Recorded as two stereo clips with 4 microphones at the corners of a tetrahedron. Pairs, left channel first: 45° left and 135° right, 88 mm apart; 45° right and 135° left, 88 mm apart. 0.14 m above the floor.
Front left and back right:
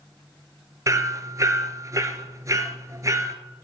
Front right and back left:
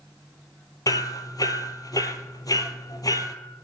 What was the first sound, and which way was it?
Hammering, 85° right.